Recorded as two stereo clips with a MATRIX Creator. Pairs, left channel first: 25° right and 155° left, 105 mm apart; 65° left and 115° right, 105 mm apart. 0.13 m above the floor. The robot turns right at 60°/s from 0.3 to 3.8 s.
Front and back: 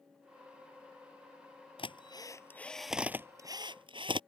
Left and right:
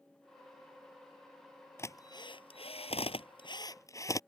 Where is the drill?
5° left; by 4.2 s 125° left.